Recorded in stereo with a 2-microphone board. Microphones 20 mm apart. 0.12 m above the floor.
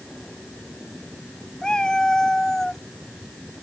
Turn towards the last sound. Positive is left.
turn(degrees=15)  # may be behind; listen again after turning